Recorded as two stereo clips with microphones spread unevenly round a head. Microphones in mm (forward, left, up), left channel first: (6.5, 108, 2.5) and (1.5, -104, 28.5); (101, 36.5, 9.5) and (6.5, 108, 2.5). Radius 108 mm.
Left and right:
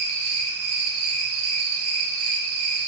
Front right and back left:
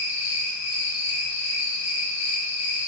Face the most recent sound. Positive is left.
turn(degrees=-70)